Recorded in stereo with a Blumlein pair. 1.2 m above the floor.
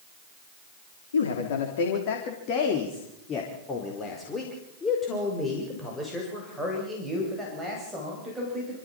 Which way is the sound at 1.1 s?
65° left.